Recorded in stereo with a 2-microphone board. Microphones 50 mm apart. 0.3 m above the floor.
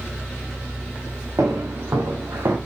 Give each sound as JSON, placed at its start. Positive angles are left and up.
{"t": 1.4, "sound": "footsteps", "side_deg": -80, "distance_m": 4.0}